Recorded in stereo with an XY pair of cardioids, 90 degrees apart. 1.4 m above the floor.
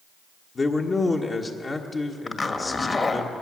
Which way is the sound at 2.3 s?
35° left.